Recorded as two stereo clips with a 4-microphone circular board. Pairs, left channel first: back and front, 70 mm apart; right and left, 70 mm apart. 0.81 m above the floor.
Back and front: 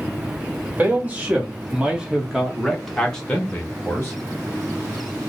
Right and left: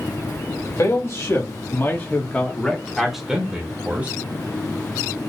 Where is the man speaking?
60° right, 1.6 m; by 4.2 s 135° left, 1.2 m.